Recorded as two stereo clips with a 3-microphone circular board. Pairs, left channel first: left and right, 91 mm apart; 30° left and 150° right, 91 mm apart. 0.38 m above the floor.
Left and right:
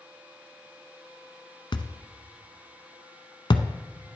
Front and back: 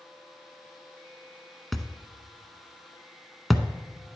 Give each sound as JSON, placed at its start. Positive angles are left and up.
{"t": 1.7, "sound": "a thud", "azimuth_deg": 120, "distance_m": 0.7}